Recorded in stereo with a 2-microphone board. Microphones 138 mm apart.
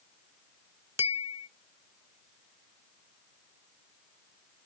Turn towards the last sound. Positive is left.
turn(degrees=-20)  # may be behind; listen again after turning